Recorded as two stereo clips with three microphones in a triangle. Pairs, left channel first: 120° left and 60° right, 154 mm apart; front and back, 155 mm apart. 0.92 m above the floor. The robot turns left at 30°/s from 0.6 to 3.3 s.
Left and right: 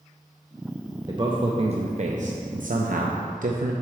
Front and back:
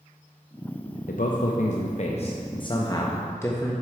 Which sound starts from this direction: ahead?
A man speaking, at 1.1 s.